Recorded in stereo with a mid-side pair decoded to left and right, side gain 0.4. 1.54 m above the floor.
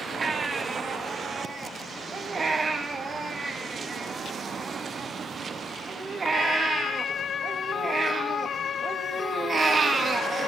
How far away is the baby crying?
About 2 m.